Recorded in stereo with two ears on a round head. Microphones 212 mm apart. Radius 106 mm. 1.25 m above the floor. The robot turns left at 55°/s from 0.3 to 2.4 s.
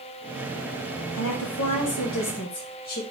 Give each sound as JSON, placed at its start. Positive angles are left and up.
{"t": 1.1, "sound": "a woman speaking", "azimuth_deg": 110, "distance_m": 1.4}